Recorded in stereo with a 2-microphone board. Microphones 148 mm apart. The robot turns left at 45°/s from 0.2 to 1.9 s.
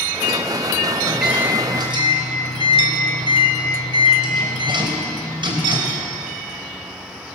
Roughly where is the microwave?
Ahead.